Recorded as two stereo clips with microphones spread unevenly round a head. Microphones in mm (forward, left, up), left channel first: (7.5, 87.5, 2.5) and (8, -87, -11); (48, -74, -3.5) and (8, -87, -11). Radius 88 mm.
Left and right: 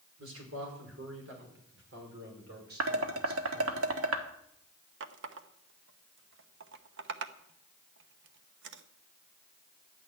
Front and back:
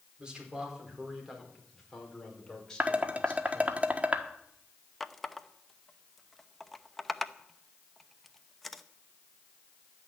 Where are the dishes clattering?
100° right, 1.5 m.